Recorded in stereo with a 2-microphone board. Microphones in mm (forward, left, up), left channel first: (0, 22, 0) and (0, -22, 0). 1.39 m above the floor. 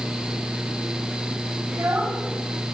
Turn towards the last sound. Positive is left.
turn(degrees=-75)  # may be behind; listen again after turning